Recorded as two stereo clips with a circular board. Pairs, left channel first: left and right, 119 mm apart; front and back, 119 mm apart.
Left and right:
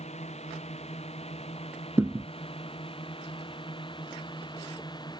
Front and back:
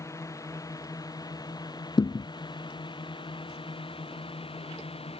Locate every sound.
0.0 s a drone: 65° left; by 5.2 s 35° left
2.0 s a thud: 30° right